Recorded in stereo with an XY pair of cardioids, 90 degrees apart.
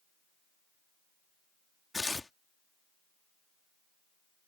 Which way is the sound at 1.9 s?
20° left.